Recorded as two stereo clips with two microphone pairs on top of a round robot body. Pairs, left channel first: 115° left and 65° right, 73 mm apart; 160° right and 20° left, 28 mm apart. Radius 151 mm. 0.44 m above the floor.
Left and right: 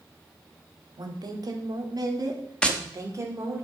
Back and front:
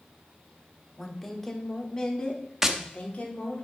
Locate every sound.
1.0 s a woman speaking: 60° right, 1.6 m; by 3.6 s 115° right, 1.9 m
2.6 s tapping: 50° left, 1.2 m